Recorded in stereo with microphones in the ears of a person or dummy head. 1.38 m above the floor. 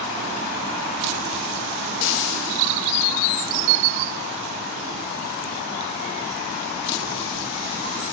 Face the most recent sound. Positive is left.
turn(degrees=65)  # may be behind; listen again after turning